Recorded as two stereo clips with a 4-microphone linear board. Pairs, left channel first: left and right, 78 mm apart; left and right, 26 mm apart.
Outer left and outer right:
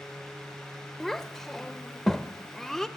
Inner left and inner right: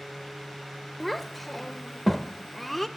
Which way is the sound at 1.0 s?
5° left (ahead or behind).